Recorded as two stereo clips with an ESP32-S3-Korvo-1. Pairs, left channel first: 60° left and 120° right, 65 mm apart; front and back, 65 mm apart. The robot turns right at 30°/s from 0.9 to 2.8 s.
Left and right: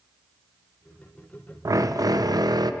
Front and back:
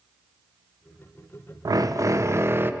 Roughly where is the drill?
Behind right.